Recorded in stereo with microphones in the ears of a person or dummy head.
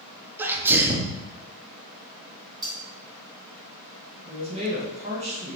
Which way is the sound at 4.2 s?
30° right (ahead or behind).